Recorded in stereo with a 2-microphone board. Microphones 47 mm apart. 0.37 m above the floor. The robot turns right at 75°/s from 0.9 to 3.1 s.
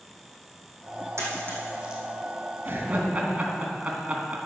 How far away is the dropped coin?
About 3 m.